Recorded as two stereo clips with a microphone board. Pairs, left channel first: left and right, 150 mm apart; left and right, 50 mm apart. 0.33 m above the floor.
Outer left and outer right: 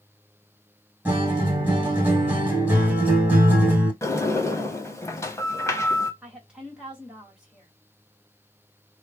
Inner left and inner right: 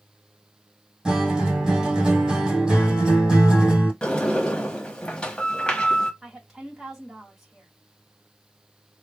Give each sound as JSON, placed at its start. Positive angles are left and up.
{"t": 1.1, "sound": "a guitar", "side_deg": -15, "distance_m": 1.9}
{"t": 4.0, "sound": "a sliding door", "side_deg": 20, "distance_m": 0.9}
{"t": 6.2, "sound": "a woman speaking", "side_deg": -5, "distance_m": 1.8}